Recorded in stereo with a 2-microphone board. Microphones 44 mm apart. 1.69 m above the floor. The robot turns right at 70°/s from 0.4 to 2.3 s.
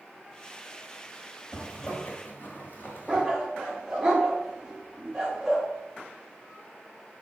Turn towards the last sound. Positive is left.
turn(degrees=-15)  # may be behind; listen again after turning